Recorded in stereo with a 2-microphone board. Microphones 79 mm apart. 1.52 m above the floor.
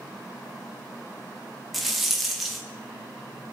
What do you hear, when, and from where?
1.7 s a rattle: centre (ahead or behind), 2 m